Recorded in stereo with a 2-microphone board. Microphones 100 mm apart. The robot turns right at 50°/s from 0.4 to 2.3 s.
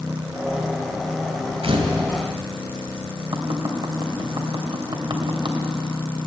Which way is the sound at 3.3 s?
55° right (ahead or behind).